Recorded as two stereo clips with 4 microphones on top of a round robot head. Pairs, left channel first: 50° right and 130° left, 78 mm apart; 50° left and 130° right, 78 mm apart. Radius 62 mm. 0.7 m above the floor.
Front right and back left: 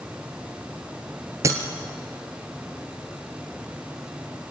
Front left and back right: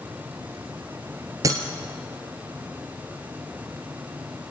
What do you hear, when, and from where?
1.4 s breaking glass: 175° right, 1.5 m